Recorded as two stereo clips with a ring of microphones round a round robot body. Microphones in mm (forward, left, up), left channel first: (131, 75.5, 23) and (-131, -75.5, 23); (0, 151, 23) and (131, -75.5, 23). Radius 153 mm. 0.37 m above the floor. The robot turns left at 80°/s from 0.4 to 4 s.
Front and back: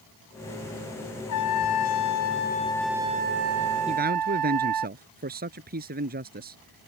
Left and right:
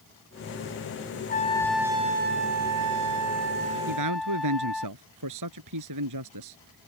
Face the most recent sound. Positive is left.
turn(degrees=-90)